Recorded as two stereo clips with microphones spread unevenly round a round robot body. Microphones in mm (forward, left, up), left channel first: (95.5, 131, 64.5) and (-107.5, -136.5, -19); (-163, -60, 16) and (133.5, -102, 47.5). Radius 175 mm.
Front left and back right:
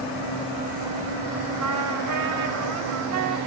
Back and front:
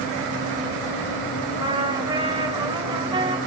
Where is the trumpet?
80° right, 1.7 m.